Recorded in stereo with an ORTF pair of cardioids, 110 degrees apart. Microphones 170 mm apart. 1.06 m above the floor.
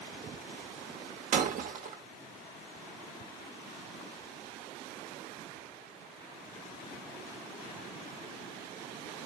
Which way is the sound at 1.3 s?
55° right.